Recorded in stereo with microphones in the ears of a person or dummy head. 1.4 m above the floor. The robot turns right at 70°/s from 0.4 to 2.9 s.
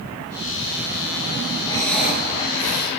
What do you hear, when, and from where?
1.6 s breathing: 155° left, 4.5 m; by 2.9 s 120° right, 4.5 m